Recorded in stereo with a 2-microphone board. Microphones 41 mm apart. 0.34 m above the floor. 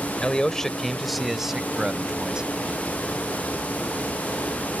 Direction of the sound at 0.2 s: 25° left (ahead or behind).